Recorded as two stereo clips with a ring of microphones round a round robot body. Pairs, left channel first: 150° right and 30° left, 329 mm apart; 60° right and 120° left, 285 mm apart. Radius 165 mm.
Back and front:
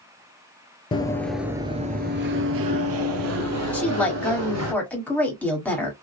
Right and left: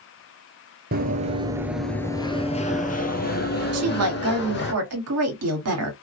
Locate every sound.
0.9 s running footsteps: 145° left, 0.7 m; by 4.7 s 10° right, 1.9 m
3.7 s a woman speaking: 125° left, 1.5 m